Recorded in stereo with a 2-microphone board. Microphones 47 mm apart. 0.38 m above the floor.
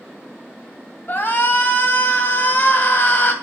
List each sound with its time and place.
1.1 s a shout: 45° left (ahead or behind), 2 m